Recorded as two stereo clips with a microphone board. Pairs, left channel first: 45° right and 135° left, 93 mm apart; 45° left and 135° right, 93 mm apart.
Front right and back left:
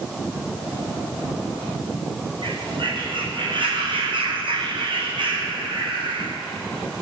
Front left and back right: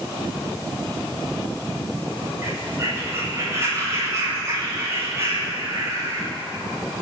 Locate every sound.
2.4 s a bird: 165° left, 7.5 m